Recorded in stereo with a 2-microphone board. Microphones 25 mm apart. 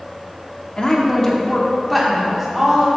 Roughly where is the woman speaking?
Left.